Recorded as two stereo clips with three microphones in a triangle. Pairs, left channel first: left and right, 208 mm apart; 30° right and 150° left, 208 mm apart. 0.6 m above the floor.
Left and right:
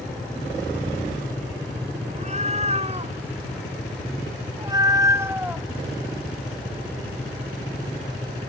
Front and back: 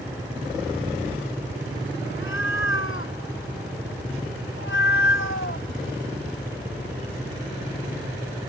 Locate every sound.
2.1 s a cat meowing: 35° right; by 5.7 s 5° right